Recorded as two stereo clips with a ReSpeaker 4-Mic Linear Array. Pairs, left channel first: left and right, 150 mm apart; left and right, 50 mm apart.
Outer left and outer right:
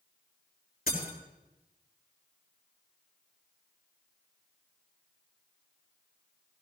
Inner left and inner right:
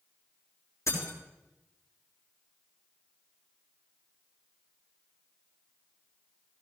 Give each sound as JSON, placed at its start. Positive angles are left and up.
{"t": 0.9, "sound": "breaking glass", "side_deg": 85, "distance_m": 4.5}